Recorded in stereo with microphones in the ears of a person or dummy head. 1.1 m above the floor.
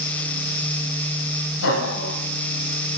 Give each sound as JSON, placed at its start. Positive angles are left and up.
{"t": 1.6, "sound": "laughter", "side_deg": 90, "distance_m": 6.5}